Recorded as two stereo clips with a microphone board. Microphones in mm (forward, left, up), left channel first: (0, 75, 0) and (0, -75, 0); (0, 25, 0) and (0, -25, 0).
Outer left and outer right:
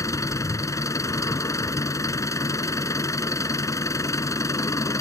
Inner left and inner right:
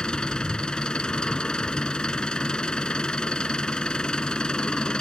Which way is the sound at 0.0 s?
20° left (ahead or behind).